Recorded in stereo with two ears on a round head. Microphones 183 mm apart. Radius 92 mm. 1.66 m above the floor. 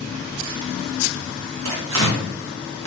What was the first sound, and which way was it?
Tearing paper, 75° right (ahead or behind).